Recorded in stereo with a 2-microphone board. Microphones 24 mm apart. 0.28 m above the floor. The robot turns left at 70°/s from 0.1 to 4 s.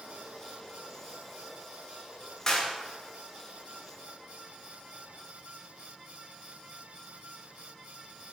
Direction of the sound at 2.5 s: 20° left (ahead or behind).